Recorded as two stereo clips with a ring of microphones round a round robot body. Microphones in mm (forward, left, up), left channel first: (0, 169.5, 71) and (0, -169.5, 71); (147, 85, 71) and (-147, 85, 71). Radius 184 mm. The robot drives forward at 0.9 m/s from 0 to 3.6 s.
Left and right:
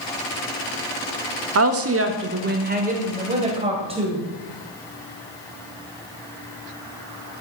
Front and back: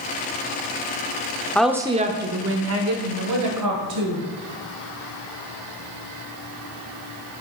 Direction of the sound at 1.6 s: 85° right.